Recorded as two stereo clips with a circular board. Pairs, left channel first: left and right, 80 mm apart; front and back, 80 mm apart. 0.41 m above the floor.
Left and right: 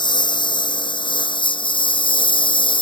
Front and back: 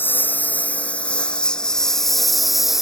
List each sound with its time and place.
0.0 s a lawn mower: 65° left; by 2.8 s 95° left